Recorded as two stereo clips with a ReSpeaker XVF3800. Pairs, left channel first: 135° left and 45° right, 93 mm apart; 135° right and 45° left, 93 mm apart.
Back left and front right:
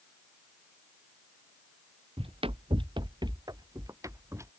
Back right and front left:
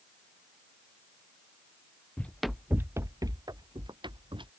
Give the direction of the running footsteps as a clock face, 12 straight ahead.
2 o'clock.